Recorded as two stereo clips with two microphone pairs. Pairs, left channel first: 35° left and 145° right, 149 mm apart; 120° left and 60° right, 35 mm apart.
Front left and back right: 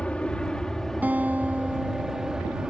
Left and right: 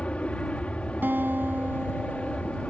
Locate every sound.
0.0 s an aircraft: 110° left; by 2.7 s 130° left
1.0 s a guitar: 65° right